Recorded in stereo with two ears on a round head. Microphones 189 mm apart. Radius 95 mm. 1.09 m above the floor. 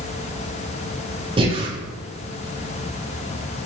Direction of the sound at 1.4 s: 25° right (ahead or behind).